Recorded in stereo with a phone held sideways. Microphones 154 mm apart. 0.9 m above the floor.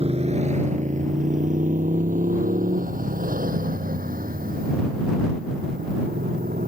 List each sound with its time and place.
0.0 s a motorcycle: 40° right (ahead or behind); by 6.7 s 70° right (ahead or behind)